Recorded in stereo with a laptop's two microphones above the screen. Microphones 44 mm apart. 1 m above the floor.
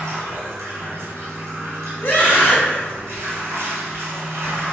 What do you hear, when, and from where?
0.0 s running water: 80° right, 0.9 m
2.0 s a scream: 40° left (ahead or behind), 1.2 m